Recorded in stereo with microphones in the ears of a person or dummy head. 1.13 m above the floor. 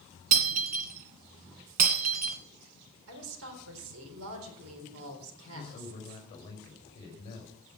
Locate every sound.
0.3 s breaking glass: 40° right (ahead or behind), 2 m
3.1 s a woman speaking: 75° right (ahead or behind), 4 m
5.5 s a man speaking: 25° left (ahead or behind), 5.5 m